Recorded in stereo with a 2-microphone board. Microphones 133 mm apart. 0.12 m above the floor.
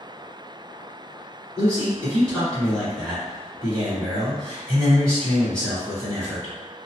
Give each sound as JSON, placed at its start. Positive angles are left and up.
{"t": 1.6, "sound": "a man speaking", "side_deg": 5, "distance_m": 1.9}